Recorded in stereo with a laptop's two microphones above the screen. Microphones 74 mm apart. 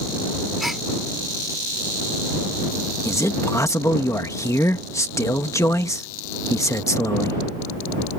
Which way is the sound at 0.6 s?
5° right (ahead or behind).